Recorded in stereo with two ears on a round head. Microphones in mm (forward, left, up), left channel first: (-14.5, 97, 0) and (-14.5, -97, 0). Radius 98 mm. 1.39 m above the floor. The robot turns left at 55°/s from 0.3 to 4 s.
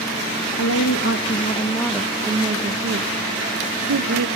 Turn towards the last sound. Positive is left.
turn(degrees=-110)